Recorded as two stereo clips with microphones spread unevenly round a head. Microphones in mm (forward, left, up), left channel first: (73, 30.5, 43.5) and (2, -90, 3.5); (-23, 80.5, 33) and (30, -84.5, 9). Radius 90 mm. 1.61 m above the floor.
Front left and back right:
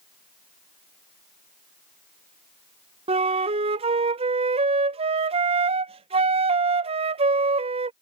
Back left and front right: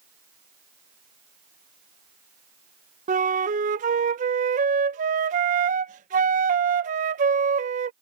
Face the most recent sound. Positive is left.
turn(degrees=-80)